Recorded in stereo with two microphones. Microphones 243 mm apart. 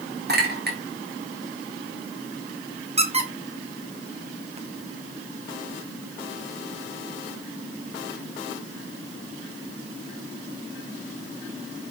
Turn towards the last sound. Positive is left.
turn(degrees=-25)  # may be behind; listen again after turning